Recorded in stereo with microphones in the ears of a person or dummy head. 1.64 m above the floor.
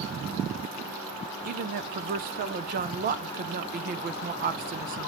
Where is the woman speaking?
45° right (ahead or behind), 0.7 m.